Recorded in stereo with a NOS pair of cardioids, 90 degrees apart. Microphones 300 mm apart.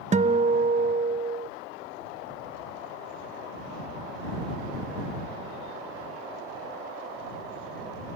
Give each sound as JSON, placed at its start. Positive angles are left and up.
{"t": 0.1, "sound": "a guitar", "azimuth_deg": -25}